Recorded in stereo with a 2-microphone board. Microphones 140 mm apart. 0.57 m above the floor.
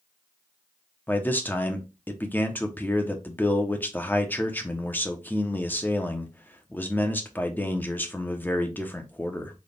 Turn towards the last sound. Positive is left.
turn(degrees=15)  # may be behind; listen again after turning